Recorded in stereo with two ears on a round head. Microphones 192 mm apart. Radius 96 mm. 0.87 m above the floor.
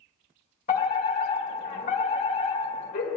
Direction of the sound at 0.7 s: 40° left (ahead or behind).